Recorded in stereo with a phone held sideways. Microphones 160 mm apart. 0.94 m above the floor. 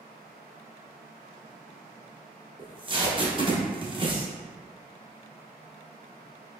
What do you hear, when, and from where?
2.6 s tape being pulled: 30° right (ahead or behind), 0.9 m